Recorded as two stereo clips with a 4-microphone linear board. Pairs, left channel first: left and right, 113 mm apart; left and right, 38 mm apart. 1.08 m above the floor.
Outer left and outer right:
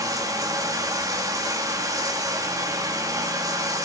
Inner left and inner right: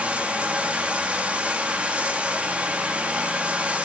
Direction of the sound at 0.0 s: 30° right (ahead or behind).